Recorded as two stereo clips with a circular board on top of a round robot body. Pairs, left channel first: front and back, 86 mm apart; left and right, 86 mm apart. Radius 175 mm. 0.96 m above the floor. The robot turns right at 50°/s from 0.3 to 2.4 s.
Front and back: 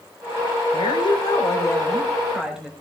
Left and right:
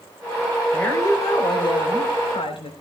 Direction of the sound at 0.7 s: 15° left.